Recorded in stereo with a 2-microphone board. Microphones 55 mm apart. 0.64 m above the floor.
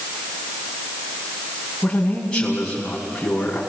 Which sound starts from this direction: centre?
A man speaking, at 1.8 s.